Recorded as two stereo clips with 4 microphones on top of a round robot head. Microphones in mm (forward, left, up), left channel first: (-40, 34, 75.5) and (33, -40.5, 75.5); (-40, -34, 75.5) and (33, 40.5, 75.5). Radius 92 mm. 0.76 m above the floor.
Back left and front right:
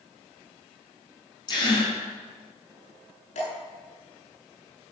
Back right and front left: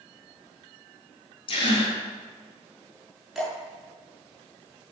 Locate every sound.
1.5 s a gasp: 175° right, 5 m
3.4 s dripping: 135° left, 6.5 m